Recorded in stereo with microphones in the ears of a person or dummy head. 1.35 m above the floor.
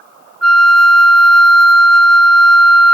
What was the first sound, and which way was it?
A flute, 5° left (ahead or behind).